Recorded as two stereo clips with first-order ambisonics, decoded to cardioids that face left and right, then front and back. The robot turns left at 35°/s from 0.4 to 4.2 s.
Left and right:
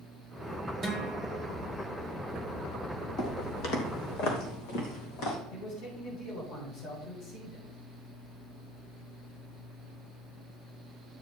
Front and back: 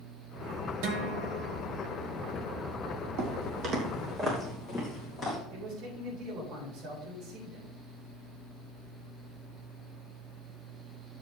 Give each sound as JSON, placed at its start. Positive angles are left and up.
{"t": 0.8, "sound": "a guitar", "azimuth_deg": -170, "distance_m": 1.8}
{"t": 3.2, "sound": "footsteps", "azimuth_deg": 160, "distance_m": 2.5}
{"t": 5.5, "sound": "a man speaking", "azimuth_deg": 125, "distance_m": 6.0}